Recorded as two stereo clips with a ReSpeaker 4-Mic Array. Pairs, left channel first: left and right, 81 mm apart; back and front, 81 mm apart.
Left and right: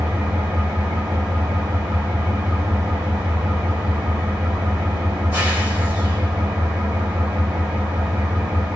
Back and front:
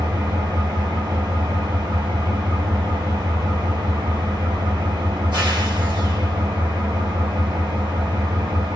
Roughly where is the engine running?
Ahead right.